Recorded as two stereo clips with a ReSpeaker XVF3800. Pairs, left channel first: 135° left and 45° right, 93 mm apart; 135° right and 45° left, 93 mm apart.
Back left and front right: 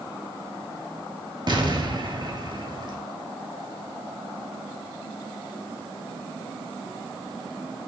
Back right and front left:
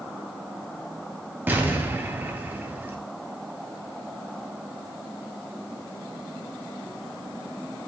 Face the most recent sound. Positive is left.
turn(degrees=-20)